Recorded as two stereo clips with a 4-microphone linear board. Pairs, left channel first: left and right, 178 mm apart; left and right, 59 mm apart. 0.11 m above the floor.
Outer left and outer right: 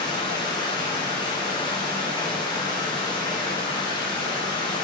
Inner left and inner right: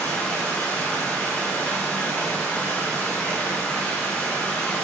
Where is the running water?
25° left (ahead or behind), 4 m.